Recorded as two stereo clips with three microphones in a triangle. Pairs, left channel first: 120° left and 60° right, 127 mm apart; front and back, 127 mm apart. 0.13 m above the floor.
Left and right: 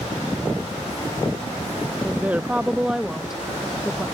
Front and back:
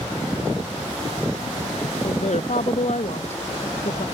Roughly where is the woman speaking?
Ahead.